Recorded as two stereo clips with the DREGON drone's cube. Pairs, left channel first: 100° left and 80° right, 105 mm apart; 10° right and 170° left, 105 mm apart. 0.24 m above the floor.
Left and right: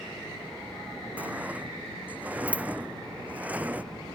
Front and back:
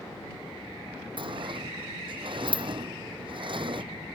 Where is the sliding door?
155° right.